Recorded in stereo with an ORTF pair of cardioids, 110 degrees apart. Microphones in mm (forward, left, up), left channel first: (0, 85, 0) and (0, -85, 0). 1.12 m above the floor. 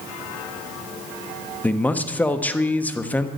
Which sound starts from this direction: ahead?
A man speaking, at 1.6 s.